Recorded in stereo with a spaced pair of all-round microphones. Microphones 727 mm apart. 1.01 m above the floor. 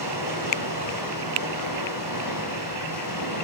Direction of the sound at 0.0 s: 25° left (ahead or behind).